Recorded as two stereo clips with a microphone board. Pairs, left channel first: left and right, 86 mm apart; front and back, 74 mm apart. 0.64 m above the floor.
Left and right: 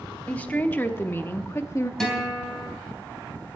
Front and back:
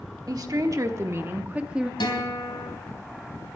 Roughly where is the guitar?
Ahead.